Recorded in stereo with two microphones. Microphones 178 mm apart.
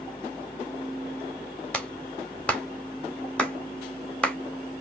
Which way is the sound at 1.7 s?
5° left (ahead or behind).